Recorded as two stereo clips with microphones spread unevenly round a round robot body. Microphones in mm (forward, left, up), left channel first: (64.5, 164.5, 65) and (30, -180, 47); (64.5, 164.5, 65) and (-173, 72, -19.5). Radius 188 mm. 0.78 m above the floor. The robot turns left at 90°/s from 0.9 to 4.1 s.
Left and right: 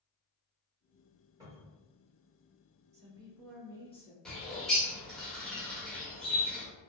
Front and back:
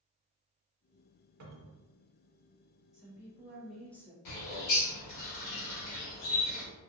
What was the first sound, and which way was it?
A cupboard door, 175° right.